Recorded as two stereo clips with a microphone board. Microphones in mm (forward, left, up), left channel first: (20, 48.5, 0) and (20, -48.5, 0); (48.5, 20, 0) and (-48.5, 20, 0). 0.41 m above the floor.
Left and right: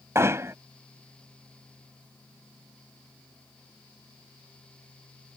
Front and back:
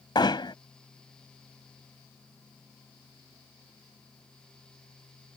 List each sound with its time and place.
0.1 s hammering: 30° right